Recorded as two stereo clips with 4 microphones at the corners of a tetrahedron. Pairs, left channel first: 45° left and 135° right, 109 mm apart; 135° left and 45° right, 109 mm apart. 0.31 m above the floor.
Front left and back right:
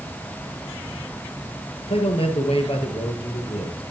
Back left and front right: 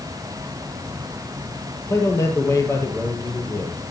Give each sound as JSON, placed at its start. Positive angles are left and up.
{"t": 1.9, "sound": "a man speaking", "azimuth_deg": 70, "distance_m": 7.0}